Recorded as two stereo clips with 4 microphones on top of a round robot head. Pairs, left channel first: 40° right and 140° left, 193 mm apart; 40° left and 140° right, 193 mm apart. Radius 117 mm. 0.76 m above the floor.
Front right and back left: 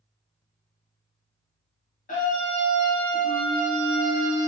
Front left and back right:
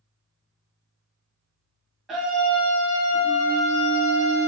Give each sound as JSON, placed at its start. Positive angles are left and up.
{"t": 2.1, "sound": "a scream", "azimuth_deg": -55, "distance_m": 1.2}